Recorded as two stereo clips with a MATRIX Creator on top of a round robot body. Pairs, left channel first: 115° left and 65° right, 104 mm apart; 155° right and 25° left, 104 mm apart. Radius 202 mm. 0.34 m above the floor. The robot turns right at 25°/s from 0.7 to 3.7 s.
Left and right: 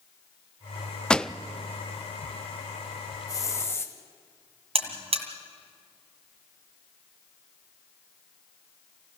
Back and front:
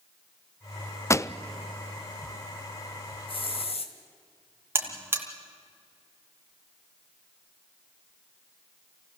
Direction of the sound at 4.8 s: 50° right.